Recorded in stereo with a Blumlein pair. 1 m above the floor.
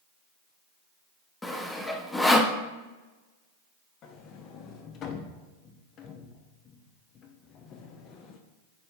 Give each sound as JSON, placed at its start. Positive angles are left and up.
{"t": 1.4, "sound": "sawing", "azimuth_deg": 5, "distance_m": 0.6}
{"t": 4.0, "sound": "a sliding door", "azimuth_deg": 30, "distance_m": 0.8}